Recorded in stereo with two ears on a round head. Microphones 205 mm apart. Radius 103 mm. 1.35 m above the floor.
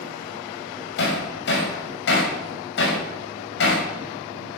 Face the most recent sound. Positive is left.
turn(degrees=55)  # may be behind; listen again after turning